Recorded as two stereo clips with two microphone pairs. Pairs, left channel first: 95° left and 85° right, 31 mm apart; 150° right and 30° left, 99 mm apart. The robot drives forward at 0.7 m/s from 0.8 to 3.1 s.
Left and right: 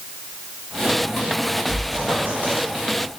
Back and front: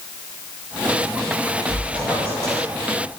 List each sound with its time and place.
1.7 s a squeak: 80° right, 2 m; by 3.2 s 110° right, 2.5 m